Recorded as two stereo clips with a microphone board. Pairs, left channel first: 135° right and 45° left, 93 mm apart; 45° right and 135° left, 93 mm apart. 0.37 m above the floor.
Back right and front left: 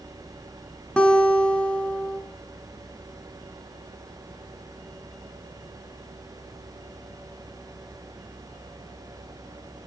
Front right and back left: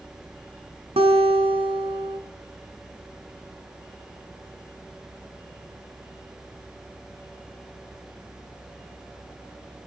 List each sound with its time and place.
1.0 s a guitar: 145° left, 1.6 m